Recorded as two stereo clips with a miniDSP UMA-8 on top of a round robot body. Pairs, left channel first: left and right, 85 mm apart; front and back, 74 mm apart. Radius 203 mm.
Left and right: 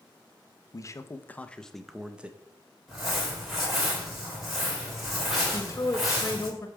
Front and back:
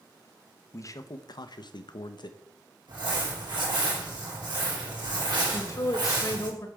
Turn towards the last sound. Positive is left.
turn(degrees=35)